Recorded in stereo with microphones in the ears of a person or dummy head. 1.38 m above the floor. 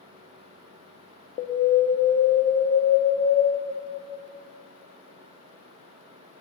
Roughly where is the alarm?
Left.